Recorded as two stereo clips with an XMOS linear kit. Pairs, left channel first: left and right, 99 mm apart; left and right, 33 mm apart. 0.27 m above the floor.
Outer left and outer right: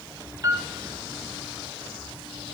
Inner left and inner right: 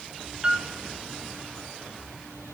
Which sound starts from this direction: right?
A piano, at 0.4 s.